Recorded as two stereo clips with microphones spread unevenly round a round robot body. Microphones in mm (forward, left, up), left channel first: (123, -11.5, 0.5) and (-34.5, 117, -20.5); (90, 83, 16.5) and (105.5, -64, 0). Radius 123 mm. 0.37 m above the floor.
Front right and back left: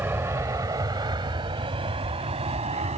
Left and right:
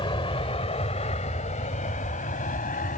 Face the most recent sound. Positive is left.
turn(degrees=90)